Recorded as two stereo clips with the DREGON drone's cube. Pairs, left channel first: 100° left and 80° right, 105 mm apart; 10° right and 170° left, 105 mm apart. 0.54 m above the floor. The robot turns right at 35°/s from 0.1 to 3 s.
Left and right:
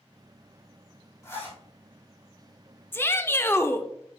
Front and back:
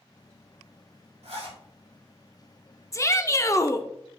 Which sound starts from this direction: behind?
A zipper, at 1.2 s.